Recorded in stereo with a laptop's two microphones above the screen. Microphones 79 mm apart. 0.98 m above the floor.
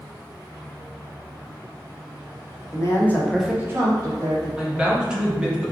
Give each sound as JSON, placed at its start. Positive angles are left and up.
{"t": 2.7, "sound": "a man speaking", "side_deg": 45, "distance_m": 0.7}
{"t": 4.6, "sound": "a man speaking", "side_deg": -15, "distance_m": 0.8}